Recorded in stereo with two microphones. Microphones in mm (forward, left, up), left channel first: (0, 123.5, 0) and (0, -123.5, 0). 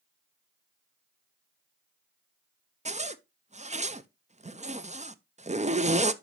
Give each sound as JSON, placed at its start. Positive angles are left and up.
{"t": 2.9, "sound": "a zipper", "side_deg": -30, "distance_m": 0.6}